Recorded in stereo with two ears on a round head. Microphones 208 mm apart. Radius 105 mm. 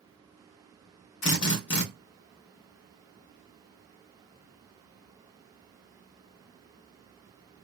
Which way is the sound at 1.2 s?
50° left (ahead or behind).